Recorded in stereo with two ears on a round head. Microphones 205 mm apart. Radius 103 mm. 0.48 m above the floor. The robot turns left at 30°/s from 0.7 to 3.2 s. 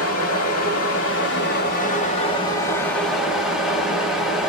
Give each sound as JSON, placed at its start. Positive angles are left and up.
{"t": 0.0, "sound": "running water", "azimuth_deg": 75, "distance_m": 1.3}